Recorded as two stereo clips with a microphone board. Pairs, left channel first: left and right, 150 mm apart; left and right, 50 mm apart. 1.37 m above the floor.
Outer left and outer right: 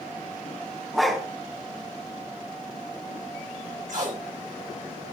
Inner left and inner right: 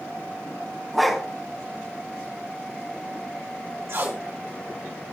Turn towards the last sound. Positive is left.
turn(degrees=-65)  # may be behind; listen again after turning